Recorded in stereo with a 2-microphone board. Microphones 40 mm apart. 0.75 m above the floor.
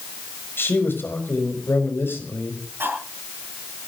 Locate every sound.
0.6 s a man speaking: 75° left (ahead or behind), 5 m
2.8 s cutlery clinking: 85° right, 8 m